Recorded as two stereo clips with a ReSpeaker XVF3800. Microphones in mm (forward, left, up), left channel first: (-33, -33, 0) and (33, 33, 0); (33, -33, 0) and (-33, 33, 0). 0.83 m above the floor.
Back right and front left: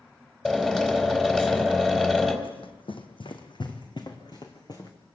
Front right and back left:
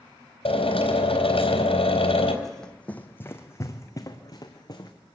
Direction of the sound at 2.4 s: 135° right.